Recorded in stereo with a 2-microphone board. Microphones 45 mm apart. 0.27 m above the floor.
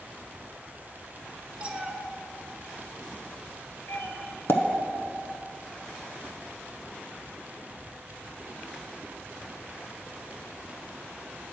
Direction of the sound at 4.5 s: 60° left (ahead or behind).